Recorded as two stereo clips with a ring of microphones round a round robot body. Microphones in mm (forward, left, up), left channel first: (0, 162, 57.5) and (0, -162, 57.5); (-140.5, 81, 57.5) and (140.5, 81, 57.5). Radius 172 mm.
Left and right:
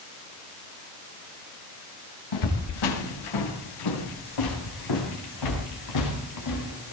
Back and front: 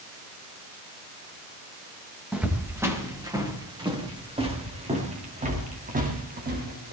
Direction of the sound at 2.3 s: 85° left.